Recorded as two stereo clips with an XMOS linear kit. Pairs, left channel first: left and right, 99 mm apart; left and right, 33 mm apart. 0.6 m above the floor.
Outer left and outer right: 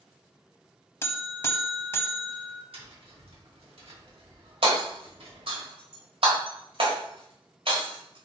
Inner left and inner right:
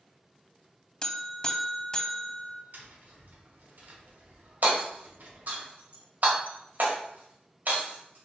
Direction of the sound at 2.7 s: 70° right (ahead or behind).